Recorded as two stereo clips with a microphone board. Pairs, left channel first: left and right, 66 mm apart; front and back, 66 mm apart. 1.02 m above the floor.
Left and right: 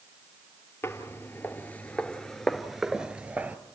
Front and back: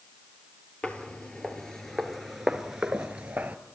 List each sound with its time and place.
0.8 s footsteps: 65° left, 1.4 m; by 3.6 s 125° right, 1.1 m